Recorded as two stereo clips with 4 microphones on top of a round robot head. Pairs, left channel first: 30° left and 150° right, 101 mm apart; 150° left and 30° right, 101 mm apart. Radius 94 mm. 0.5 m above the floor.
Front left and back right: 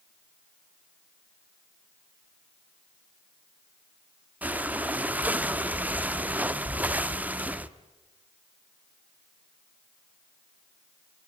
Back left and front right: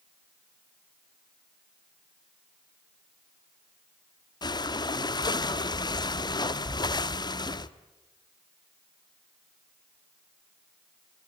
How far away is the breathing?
About 1.1 m.